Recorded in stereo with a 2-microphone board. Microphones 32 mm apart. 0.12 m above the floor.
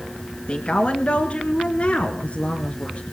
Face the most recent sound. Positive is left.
turn(degrees=35)  # may be behind; listen again after turning